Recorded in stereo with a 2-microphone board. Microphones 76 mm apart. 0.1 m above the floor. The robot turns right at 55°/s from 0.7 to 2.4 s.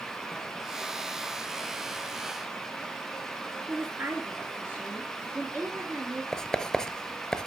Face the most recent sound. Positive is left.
turn(degrees=10)  # may be behind; listen again after turning